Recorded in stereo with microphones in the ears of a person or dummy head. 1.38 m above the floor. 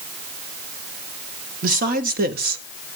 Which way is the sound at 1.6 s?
45° right (ahead or behind).